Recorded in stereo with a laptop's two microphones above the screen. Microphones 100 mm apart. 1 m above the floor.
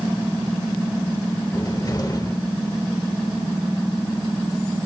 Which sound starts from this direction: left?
A cupboard door, at 1.5 s.